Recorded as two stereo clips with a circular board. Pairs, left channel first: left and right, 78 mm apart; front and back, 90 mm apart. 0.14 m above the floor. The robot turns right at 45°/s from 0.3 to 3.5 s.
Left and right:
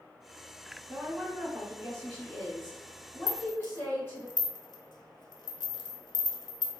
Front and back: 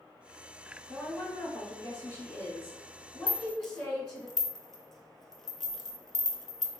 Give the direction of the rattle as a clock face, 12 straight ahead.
10 o'clock.